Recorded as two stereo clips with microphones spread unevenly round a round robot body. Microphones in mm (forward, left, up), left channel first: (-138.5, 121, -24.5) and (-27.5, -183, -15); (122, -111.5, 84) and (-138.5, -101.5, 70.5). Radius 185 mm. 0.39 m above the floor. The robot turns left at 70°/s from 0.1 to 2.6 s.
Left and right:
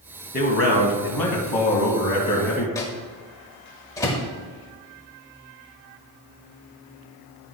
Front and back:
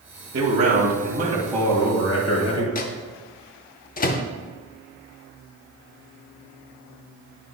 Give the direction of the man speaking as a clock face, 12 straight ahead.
6 o'clock.